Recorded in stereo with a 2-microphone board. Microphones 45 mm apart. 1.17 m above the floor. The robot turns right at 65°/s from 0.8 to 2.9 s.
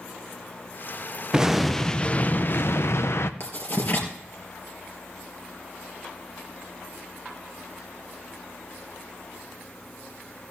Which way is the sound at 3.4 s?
55° left (ahead or behind).